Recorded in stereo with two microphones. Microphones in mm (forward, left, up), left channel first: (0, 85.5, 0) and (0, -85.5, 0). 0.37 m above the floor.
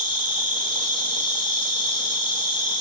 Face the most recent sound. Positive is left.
turn(degrees=-55)  # may be behind; listen again after turning